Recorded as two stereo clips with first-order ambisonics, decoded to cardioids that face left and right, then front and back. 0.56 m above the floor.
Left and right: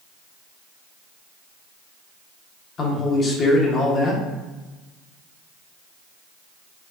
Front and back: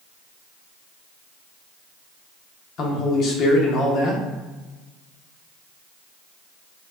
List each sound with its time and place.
2.8 s a man speaking: 35° left, 0.9 m